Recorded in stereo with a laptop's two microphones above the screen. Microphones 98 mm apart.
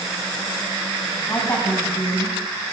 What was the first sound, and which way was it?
A woman speaking, 30° left (ahead or behind).